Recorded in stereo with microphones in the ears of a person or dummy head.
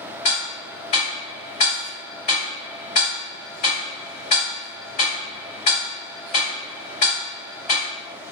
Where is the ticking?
35° left (ahead or behind), 1.5 m.